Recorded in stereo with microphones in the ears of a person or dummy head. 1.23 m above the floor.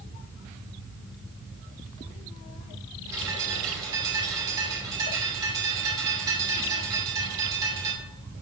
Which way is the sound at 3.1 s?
20° right (ahead or behind).